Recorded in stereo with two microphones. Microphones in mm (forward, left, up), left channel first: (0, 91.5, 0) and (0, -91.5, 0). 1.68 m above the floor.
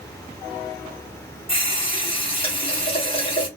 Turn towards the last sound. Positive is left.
turn(degrees=30)  # may be behind; listen again after turning